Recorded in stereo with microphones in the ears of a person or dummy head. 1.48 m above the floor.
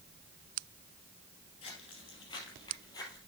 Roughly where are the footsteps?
Left.